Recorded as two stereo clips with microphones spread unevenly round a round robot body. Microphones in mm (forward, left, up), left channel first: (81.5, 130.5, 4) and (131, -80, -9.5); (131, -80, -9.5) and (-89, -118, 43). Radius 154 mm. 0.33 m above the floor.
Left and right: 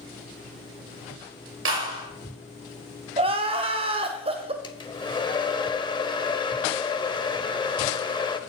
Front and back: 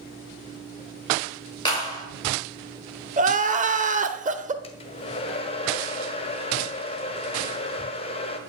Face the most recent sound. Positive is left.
turn(degrees=40)